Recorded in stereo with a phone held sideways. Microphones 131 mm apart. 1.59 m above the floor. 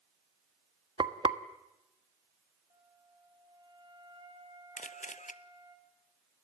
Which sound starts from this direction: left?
A camera shutter, at 4.8 s.